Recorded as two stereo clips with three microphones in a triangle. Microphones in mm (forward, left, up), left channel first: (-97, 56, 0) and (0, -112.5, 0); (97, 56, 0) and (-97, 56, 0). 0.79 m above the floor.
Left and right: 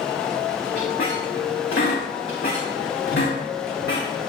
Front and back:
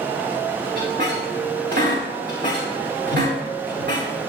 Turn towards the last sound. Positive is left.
turn(degrees=145)